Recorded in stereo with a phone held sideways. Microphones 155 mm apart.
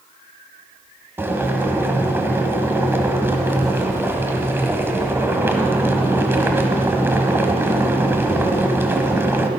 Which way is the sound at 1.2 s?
15° right (ahead or behind).